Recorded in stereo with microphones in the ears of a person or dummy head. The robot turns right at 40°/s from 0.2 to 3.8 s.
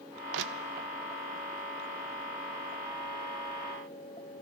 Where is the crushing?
70° right (ahead or behind), 0.6 m; by 0.9 s 55° right (ahead or behind), 0.6 m.